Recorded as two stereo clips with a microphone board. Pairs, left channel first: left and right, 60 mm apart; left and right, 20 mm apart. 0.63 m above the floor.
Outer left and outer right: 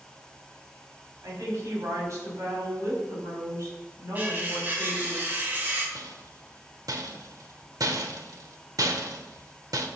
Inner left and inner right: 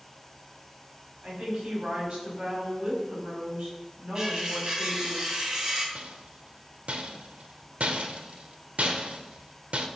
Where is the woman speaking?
55° right (ahead or behind), 4.5 m.